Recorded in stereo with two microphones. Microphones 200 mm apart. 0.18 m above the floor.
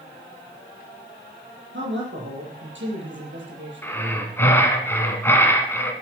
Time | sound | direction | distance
1.7 | a man speaking | 70° right (ahead or behind) | 5.5 m
3.8 | breathing | 10° left (ahead or behind) | 1.9 m